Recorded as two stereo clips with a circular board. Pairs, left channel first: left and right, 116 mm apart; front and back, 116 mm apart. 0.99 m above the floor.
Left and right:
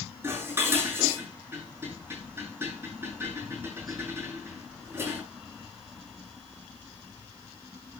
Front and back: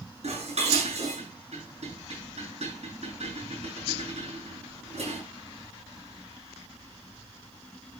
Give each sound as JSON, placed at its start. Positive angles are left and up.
{"t": 0.2, "sound": "dishes clattering", "azimuth_deg": -160, "distance_m": 7.5}